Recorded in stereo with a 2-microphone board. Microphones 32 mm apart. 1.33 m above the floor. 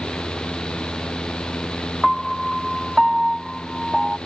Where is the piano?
5° left (ahead or behind).